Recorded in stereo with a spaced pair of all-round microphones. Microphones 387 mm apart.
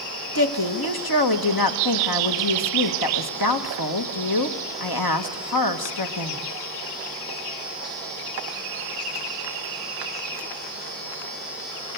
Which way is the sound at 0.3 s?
65° left (ahead or behind).